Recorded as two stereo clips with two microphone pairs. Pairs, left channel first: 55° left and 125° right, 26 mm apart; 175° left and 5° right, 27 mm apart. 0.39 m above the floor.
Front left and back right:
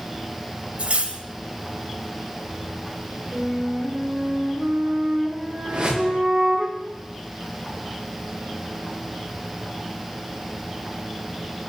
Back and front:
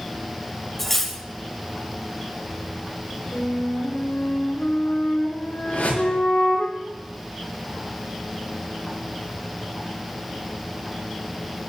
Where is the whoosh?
170° right, 8.5 m.